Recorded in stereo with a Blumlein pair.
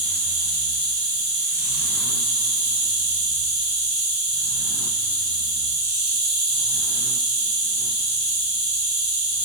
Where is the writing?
I don't hear writing.